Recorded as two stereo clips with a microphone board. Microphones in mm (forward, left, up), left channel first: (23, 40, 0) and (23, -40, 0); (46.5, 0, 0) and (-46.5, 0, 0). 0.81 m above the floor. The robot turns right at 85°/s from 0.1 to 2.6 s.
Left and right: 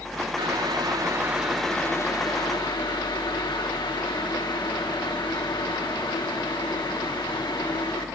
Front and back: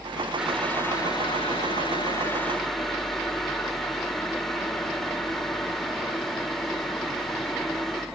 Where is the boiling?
100° right, 2 m; by 8.1 s 90° left, 2 m.